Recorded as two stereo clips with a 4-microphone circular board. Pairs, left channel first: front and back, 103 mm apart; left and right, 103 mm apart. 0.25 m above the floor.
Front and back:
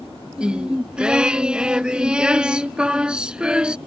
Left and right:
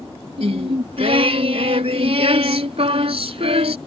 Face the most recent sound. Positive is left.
turn(degrees=-100)